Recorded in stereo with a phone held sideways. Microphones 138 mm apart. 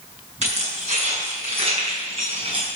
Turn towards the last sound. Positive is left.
turn(degrees=-45)  # may be behind; listen again after turning